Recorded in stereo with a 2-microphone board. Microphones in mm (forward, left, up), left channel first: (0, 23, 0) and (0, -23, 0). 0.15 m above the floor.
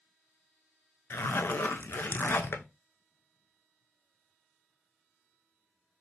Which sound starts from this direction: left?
A zipper, at 1.1 s.